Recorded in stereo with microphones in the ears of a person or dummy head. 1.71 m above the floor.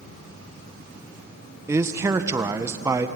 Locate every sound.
1.7 s a man speaking: 15° right (ahead or behind), 1.4 m